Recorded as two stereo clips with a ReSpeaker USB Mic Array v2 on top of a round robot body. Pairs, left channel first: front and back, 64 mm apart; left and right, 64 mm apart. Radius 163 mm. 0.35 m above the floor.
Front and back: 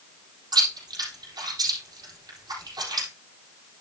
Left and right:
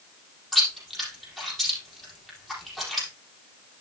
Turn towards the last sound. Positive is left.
turn(degrees=180)